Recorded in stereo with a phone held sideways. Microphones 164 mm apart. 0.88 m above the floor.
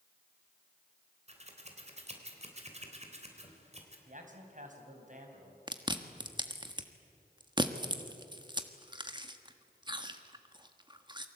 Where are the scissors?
40° right (ahead or behind), 3.5 m.